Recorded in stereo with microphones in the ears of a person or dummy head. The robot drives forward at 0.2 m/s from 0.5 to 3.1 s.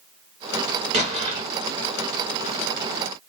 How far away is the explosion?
About 0.9 m.